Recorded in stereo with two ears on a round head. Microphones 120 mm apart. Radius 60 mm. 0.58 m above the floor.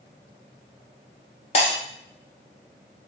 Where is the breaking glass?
50° left (ahead or behind), 4 m.